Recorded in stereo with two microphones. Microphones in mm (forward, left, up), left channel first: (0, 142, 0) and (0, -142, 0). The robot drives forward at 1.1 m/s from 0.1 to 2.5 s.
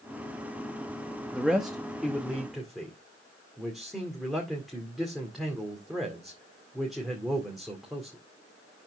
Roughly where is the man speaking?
Centre.